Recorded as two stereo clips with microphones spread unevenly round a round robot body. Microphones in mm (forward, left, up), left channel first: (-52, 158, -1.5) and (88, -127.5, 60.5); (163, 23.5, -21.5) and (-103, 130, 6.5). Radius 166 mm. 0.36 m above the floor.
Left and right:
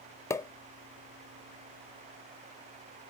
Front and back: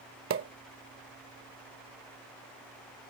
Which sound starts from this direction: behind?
A pop, at 0.3 s.